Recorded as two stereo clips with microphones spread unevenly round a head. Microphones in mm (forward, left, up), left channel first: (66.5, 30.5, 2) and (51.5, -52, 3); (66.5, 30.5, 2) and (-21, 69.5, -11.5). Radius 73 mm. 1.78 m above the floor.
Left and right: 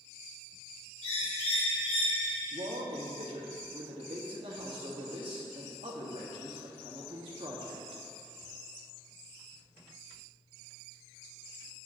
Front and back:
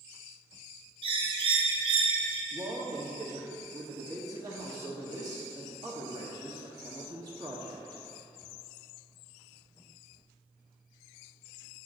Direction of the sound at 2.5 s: 135° right.